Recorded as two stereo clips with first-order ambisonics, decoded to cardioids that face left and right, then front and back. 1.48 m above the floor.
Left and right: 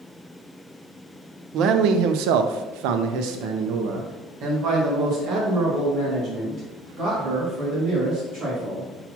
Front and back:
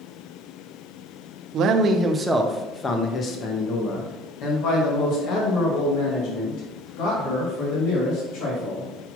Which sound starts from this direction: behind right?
A man speaking, at 1.5 s.